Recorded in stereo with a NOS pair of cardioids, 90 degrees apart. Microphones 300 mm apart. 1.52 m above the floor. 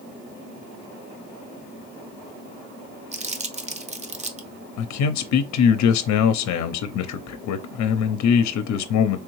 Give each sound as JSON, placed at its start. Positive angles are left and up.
{"t": 3.1, "sound": "crumpling", "azimuth_deg": -25, "distance_m": 0.8}
{"t": 4.8, "sound": "a man speaking", "azimuth_deg": 70, "distance_m": 0.7}